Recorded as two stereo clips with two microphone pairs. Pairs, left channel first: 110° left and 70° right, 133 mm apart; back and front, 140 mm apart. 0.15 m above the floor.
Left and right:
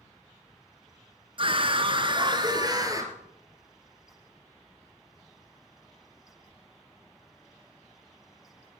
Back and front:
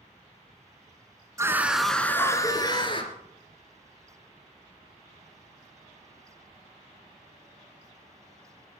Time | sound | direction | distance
1.4 | a scream | 55° right | 1.4 m